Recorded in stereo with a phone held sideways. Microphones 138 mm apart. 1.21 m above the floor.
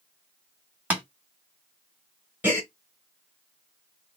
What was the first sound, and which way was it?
Tapping, 10° right (ahead or behind).